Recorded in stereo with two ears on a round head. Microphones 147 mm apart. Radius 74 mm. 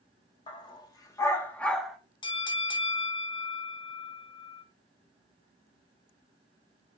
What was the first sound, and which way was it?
A dog barking, 30° left (ahead or behind).